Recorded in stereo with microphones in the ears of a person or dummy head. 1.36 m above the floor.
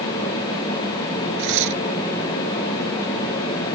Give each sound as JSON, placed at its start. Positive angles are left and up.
{"t": 1.4, "sound": "tearing paper", "side_deg": -65}